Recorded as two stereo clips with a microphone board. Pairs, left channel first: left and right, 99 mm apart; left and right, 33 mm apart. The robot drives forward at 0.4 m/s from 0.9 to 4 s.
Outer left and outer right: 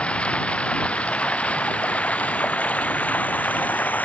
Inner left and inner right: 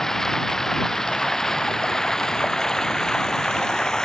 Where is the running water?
10° left (ahead or behind); by 4.1 s 15° left (ahead or behind).